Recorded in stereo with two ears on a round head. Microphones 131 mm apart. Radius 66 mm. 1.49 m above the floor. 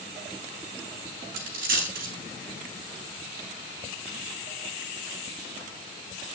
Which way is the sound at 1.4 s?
65° right (ahead or behind).